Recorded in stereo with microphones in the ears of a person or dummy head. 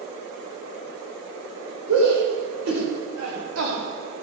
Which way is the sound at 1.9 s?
80° right.